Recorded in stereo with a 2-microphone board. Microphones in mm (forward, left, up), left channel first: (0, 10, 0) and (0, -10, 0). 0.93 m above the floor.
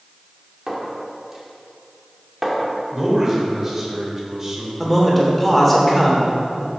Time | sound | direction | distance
0.7 | a clink | 15° right (ahead or behind) | 1.7 m
2.9 | a man speaking | 20° right (ahead or behind) | 3 m
4.8 | a man speaking | centre (ahead or behind) | 3 m